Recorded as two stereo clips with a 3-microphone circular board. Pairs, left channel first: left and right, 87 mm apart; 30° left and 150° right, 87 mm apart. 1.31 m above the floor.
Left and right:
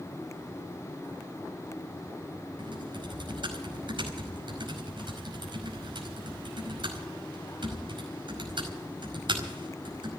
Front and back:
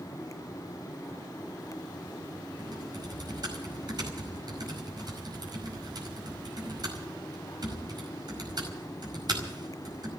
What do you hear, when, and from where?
2.6 s typing on a keyboard: 115° right, 5 m